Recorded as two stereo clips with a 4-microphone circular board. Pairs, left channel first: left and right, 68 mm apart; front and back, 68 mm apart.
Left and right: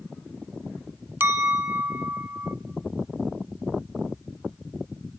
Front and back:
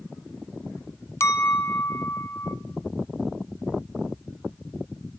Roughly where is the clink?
Ahead right.